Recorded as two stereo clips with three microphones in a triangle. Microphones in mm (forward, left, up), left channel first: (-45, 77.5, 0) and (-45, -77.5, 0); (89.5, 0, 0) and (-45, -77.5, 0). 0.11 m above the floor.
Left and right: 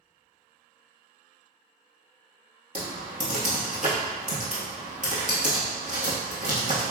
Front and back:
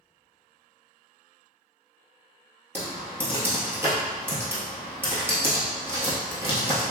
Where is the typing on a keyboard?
75° right, 1.3 m.